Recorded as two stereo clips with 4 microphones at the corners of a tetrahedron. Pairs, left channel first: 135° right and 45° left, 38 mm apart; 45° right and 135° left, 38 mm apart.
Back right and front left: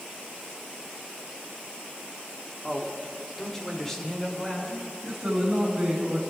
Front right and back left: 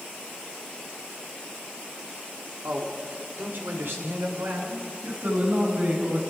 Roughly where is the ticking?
No ticking in this recording.